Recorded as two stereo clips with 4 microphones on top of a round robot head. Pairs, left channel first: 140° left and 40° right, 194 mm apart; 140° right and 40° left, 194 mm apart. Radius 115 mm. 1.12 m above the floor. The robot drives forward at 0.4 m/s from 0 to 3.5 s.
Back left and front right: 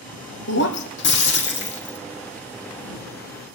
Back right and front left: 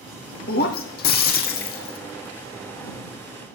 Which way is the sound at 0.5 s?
175° left.